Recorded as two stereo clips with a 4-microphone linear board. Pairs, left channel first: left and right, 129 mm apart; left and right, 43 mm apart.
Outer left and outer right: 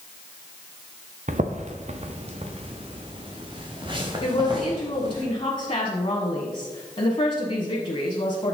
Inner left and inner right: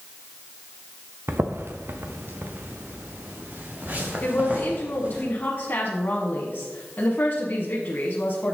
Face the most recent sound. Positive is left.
turn(degrees=40)  # may be behind; listen again after turning